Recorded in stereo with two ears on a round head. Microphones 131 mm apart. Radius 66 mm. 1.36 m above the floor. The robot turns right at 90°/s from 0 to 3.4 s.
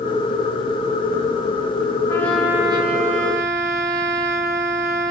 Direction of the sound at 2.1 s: 155° left.